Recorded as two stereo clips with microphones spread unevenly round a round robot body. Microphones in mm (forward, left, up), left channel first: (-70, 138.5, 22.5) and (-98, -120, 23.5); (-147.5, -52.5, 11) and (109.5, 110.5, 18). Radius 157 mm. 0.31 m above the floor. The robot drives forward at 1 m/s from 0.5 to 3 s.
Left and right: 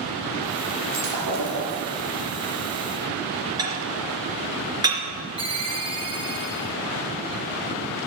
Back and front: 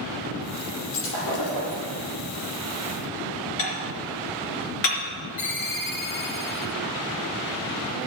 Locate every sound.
0.9 s breaking glass: 95° right, 5 m; by 1.8 s 105° right, 5 m
3.6 s dishes clattering: 170° right, 3.5 m
5.4 s a ringtone: 165° right, 4 m